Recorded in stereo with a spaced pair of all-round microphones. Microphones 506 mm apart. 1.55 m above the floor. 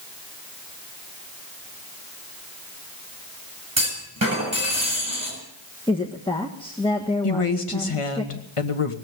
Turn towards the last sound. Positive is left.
turn(degrees=85)